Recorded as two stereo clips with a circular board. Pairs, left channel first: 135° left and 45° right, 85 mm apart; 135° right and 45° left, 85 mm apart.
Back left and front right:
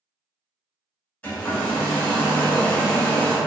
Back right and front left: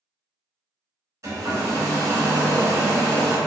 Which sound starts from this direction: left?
A hair dryer, at 1.2 s.